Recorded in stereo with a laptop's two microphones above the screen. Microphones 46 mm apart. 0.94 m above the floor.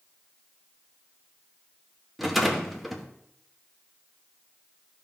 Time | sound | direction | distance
2.2 | a rattle | centre (ahead or behind) | 1.1 m